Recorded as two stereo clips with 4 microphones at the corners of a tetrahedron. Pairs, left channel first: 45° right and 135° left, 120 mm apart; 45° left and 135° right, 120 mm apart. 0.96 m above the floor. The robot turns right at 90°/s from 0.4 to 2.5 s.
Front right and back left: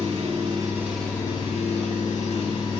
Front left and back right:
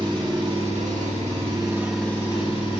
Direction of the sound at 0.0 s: 175° left.